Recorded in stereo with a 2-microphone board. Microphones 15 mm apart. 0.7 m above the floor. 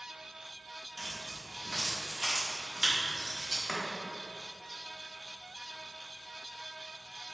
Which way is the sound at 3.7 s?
40° left (ahead or behind).